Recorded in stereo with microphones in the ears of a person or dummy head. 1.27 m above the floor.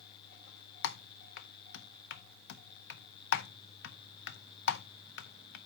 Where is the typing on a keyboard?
60° left (ahead or behind), 0.5 m.